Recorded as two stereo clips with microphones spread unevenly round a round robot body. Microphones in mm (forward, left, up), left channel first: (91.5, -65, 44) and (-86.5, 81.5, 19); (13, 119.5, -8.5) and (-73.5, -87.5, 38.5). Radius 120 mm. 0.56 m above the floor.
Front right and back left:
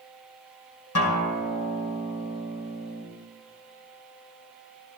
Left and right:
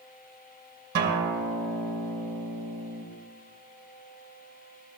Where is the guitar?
60° right, 2.5 m.